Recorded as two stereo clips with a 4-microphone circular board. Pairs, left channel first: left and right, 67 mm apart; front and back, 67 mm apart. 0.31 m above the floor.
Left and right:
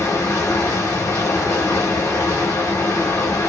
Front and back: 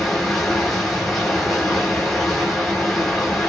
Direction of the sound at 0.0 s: 90° left.